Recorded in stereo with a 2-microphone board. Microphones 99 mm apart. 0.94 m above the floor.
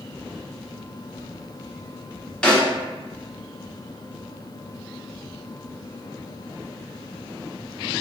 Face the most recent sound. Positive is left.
turn(degrees=10)  # may be behind; listen again after turning